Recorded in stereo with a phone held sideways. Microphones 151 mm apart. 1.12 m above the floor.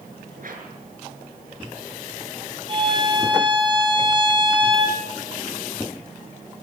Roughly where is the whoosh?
Right.